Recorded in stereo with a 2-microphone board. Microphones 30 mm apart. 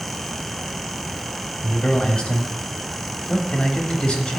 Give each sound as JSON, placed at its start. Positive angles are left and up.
{"t": 1.6, "sound": "a man speaking", "side_deg": 35, "distance_m": 1.4}